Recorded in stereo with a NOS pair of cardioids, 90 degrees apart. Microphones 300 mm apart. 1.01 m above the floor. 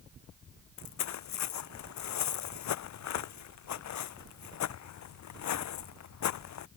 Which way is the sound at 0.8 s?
70° left.